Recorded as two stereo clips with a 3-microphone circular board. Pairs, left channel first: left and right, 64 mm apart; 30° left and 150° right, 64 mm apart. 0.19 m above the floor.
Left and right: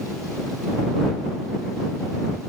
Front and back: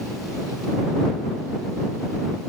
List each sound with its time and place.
Only background noise.